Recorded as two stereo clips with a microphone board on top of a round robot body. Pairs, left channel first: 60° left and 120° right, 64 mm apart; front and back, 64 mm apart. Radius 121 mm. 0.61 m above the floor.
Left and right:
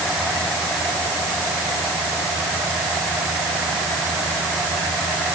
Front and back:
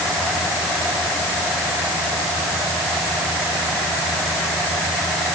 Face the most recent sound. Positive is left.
No sound to turn to.